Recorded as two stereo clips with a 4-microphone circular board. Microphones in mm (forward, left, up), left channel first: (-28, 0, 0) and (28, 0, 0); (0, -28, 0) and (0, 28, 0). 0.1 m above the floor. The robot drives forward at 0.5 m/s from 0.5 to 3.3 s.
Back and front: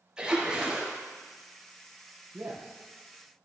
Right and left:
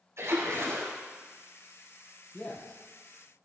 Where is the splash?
75° left, 4 m.